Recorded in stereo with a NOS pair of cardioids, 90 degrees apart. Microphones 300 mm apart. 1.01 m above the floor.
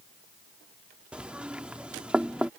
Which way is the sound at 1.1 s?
5° right.